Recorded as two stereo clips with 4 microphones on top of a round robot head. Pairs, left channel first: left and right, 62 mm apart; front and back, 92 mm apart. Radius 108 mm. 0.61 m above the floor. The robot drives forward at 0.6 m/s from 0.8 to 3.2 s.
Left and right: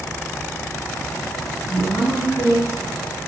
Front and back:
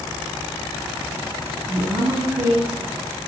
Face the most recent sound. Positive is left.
turn(degrees=155)